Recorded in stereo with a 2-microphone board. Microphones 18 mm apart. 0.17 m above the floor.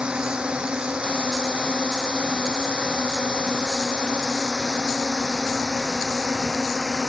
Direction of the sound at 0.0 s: 80° right.